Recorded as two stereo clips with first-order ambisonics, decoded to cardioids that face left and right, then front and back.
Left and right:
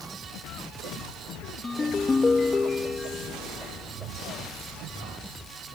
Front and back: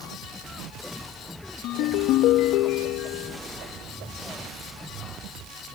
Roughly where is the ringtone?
Ahead.